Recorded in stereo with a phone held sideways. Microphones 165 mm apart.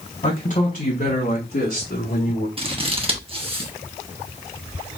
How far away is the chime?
I don't hear a chime.